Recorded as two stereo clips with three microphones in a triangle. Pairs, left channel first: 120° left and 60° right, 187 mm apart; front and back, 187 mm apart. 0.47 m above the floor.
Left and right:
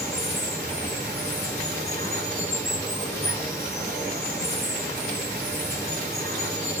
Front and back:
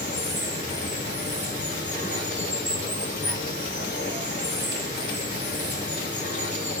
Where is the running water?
45° left, 5 m.